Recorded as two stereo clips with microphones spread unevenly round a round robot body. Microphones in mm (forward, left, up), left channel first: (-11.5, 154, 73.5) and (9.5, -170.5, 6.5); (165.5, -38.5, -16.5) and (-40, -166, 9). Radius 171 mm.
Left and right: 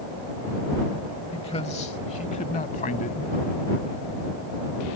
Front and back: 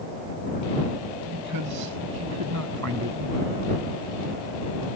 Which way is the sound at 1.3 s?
170° left.